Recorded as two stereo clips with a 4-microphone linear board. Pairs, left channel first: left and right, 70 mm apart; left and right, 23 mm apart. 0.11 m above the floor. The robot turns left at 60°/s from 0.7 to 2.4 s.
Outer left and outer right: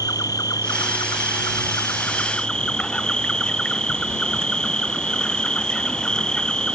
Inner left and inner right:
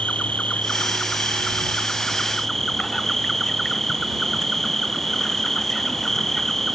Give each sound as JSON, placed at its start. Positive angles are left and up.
{"t": 0.0, "sound": "an insect", "azimuth_deg": 115}